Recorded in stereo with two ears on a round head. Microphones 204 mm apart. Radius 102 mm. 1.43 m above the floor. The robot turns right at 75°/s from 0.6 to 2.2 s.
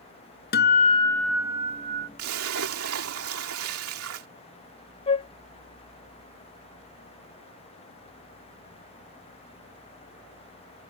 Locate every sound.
0.5 s a guitar: 125° left; by 2.1 s 120° right
2.2 s a splash: 70° right (ahead or behind); by 4.3 s 65° right (ahead or behind)
5.1 s a flute: 25° left (ahead or behind)